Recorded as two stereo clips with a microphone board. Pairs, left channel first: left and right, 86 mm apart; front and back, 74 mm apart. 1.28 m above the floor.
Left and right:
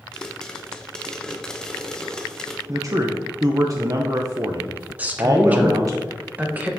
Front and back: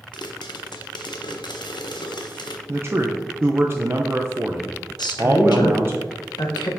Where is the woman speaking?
15° right, 1.0 m.